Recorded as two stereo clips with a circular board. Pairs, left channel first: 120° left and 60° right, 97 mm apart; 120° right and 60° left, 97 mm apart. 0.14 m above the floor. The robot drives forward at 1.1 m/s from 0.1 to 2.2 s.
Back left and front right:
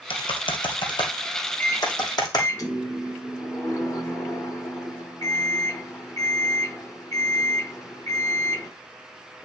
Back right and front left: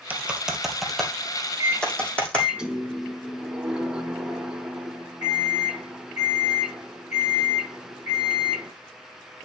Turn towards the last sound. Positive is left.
turn(degrees=135)